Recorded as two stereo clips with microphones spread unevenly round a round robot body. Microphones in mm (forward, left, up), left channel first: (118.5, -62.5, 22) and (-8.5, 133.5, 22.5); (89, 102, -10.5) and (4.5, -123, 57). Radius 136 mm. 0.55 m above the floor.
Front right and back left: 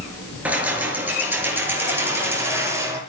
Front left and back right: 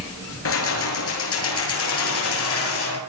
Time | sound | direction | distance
0.5 | keys jangling | 40° left | 6.5 m